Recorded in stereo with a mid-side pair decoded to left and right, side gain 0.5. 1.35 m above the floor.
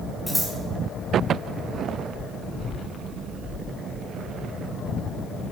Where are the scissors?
5° left, 6.5 m.